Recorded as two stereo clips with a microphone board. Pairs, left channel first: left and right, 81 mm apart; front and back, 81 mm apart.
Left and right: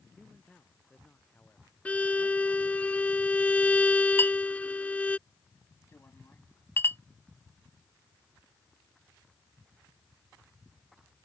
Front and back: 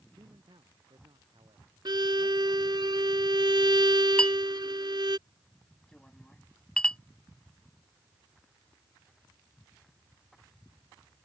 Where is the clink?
65° left.